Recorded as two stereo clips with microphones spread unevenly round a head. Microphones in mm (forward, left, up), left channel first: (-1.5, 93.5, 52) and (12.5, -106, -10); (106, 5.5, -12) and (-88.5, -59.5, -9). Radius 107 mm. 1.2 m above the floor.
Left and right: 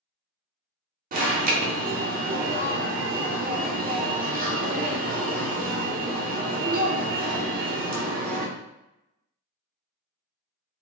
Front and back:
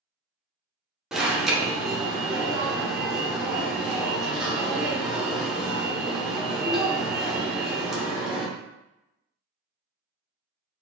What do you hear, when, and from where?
1.1 s an alarm: 75° right, 0.7 m